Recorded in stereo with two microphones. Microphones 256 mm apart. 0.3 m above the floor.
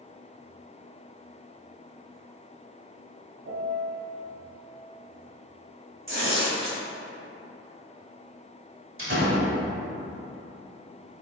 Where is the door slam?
55° right (ahead or behind), 1.2 m.